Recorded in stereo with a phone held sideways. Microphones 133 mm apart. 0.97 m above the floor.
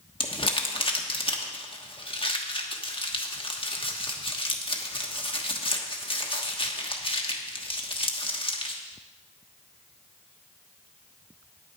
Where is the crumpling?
45° left (ahead or behind), 1.2 m.